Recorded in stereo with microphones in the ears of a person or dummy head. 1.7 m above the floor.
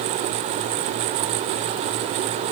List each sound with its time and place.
Only background noise.